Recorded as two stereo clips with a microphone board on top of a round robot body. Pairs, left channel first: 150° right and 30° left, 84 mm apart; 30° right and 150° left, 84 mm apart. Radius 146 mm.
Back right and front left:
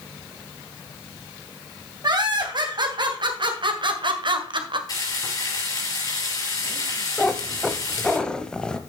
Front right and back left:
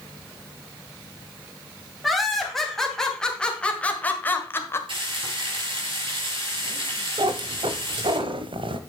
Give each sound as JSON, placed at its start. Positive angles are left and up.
{"t": 2.0, "sound": "laughter", "azimuth_deg": 60, "distance_m": 3.5}
{"t": 4.9, "sound": "frying", "azimuth_deg": 165, "distance_m": 7.0}
{"t": 7.2, "sound": "a cat meowing", "azimuth_deg": 130, "distance_m": 0.7}